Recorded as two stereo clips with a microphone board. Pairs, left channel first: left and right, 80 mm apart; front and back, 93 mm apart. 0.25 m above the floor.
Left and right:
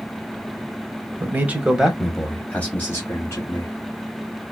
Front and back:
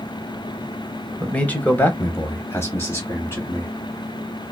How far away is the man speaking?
About 1.1 m.